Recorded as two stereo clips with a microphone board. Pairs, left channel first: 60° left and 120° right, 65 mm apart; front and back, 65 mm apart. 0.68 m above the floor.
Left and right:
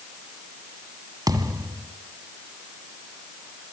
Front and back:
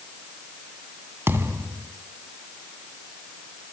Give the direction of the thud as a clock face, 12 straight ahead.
4 o'clock.